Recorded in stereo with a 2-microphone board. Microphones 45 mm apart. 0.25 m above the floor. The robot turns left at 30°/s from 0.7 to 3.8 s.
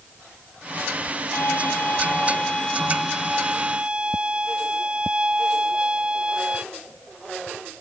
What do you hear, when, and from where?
1.3 s a violin: 55° left; by 6.6 s 20° right